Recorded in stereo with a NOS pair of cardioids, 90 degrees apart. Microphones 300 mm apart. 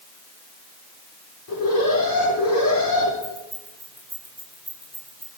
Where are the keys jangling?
10° left, 8 m.